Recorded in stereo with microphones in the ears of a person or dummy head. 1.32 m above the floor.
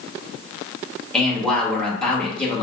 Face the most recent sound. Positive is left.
turn(degrees=5)  # may be behind; listen again after turning